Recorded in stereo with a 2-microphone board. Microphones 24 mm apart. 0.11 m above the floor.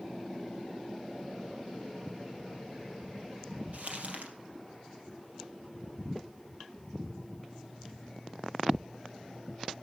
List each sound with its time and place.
3.7 s crumpling: 55° right (ahead or behind), 3 m